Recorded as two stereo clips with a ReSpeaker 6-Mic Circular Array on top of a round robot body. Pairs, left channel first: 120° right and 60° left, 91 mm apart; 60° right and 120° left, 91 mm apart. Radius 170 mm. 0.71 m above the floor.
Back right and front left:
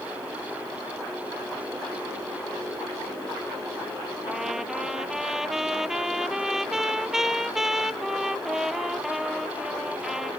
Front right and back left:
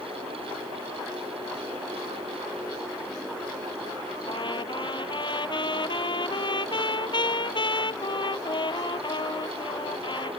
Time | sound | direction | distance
4.3 | a trumpet | 25° right | ?